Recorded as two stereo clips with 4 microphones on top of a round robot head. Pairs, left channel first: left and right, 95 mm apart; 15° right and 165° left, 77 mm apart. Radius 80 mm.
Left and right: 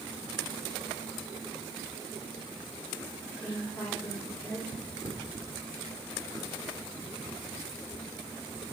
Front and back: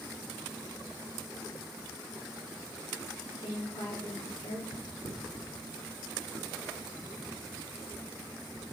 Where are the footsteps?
15° right, 4.5 m; by 8.6 s 45° right, 2 m.